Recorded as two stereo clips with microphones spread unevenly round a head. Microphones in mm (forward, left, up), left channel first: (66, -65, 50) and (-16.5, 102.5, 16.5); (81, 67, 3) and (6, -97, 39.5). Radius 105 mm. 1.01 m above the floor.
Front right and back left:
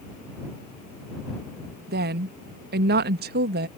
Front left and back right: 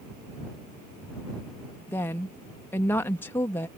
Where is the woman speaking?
140° left.